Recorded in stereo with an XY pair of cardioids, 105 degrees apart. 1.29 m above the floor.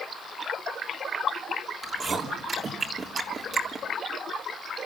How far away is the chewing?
About 3.5 m.